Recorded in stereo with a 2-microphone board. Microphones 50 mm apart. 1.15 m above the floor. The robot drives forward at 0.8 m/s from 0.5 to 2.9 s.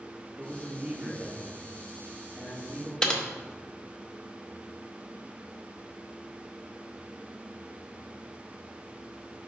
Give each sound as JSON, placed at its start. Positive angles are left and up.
{"t": 0.4, "sound": "a man speaking", "side_deg": -30, "distance_m": 1.9}
{"t": 3.0, "sound": "typing on a keyboard", "side_deg": 15, "distance_m": 0.7}